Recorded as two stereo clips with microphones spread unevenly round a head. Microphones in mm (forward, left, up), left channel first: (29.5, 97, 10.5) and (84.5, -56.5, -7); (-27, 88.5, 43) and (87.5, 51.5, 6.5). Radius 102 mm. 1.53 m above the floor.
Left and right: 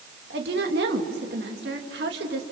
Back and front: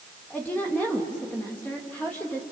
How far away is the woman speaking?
About 2.5 m.